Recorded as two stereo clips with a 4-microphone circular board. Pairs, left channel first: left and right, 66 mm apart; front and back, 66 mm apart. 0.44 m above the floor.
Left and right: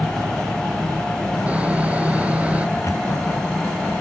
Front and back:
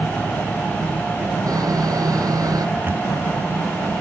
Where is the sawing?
160° right.